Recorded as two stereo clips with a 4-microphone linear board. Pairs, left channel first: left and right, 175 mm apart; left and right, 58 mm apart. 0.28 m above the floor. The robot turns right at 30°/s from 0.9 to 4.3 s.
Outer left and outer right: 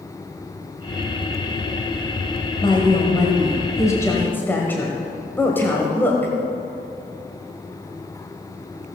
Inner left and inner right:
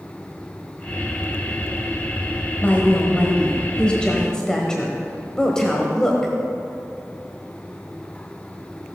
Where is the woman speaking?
25° left (ahead or behind), 1.3 m; by 6.3 s 10° left (ahead or behind), 1.3 m.